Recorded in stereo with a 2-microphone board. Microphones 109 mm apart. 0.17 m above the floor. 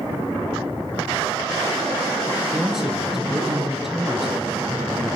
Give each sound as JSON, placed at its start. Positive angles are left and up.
{"t": 2.5, "sound": "a man speaking", "side_deg": -5, "distance_m": 3.0}